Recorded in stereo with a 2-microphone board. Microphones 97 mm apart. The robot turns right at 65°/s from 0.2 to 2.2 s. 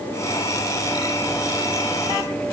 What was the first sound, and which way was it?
Only background noise.